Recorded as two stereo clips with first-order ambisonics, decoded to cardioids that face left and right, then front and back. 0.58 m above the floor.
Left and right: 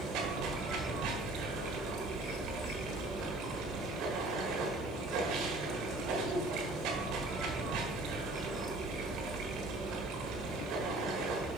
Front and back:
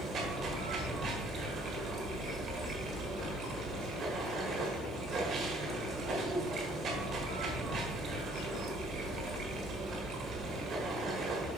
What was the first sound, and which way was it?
Running water, 125° right.